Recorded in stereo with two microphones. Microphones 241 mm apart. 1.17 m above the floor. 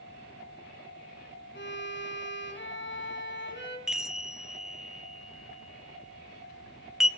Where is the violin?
50° left (ahead or behind), 2.5 m.